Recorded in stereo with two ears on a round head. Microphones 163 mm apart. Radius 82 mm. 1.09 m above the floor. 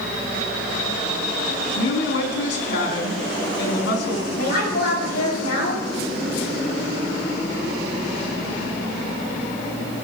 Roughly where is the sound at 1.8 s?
Left.